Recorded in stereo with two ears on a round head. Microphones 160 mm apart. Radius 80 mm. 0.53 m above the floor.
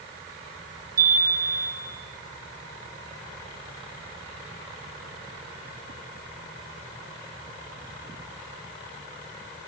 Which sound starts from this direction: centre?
A chime, at 1.0 s.